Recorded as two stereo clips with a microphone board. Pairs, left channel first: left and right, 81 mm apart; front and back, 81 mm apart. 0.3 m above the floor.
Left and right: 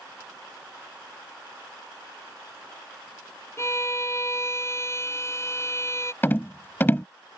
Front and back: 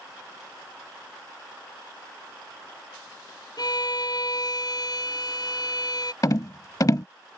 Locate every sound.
3.6 s a violin: 35° left
6.2 s a rattle: 30° left